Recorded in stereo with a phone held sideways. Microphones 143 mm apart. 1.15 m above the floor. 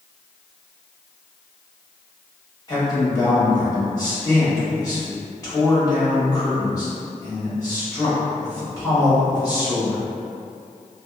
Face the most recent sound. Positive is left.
turn(degrees=25)  # may be behind; listen again after turning